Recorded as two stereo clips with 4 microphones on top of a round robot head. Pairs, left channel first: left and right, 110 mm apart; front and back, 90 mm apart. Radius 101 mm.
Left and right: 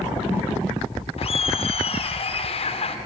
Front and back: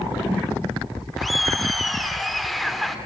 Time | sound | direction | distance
1.2 | laughter | 90° left | 2 m